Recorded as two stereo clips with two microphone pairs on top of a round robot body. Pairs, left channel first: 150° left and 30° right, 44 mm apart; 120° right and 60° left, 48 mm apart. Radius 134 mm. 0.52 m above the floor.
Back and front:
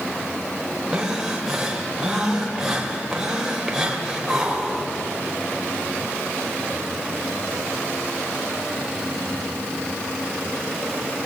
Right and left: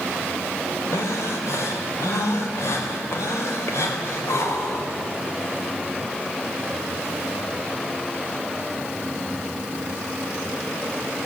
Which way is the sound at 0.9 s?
115° right.